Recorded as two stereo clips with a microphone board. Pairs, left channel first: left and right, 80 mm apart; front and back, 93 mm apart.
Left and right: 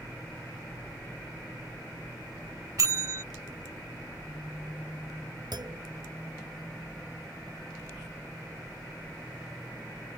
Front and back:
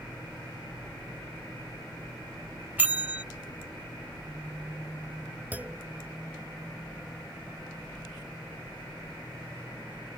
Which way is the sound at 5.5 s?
110° right.